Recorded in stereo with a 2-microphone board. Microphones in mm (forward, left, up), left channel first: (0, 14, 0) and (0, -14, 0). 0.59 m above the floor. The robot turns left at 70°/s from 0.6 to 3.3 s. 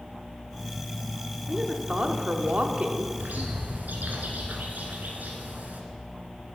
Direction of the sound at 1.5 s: 20° right.